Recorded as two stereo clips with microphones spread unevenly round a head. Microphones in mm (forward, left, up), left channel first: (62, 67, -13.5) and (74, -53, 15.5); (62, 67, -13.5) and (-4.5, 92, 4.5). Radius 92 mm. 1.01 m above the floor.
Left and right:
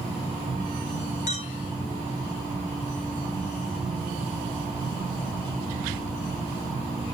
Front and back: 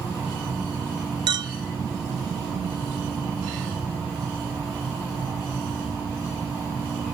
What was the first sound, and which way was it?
A clink, 135° left.